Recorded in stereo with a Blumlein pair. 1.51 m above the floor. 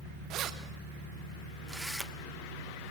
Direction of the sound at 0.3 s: 35° right.